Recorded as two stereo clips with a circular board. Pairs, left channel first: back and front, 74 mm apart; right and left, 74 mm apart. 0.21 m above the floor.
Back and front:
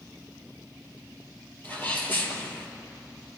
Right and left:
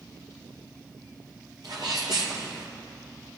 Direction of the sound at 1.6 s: 115° left.